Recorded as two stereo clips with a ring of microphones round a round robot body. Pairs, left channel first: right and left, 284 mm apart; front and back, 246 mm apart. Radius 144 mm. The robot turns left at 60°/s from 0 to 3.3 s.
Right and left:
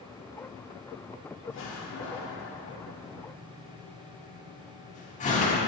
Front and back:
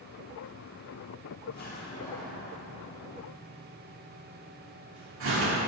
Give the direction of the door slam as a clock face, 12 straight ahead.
1 o'clock.